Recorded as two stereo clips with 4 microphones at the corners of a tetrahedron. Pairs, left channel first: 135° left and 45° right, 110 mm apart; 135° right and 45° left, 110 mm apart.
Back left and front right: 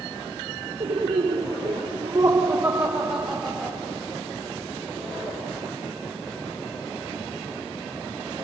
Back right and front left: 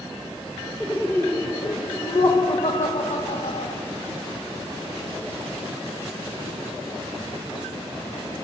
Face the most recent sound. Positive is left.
turn(degrees=-140)